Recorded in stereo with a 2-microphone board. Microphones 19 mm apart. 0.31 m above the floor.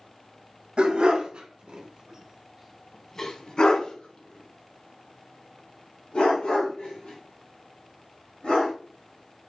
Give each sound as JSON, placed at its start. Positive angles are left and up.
{"t": 0.8, "sound": "a dog barking", "side_deg": -70, "distance_m": 1.2}